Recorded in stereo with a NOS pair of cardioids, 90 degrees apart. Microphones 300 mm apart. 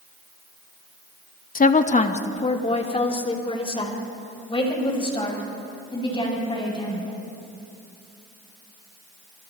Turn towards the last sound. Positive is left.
turn(degrees=15)